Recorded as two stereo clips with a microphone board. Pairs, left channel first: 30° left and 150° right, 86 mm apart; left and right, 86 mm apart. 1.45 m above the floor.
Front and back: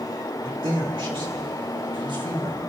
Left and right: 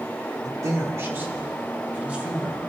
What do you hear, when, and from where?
0.4 s a man speaking: 135° right, 2.5 m; by 2.6 s 170° right, 4.5 m